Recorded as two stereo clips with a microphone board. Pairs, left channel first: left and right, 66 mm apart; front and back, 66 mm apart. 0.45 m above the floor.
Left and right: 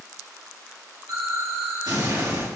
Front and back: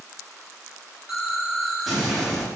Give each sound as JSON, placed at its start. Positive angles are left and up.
{"t": 1.1, "sound": "an explosion", "azimuth_deg": -95, "distance_m": 8.0}